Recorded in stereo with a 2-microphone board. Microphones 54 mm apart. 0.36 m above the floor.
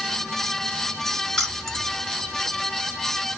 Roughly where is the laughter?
No laughter in this recording.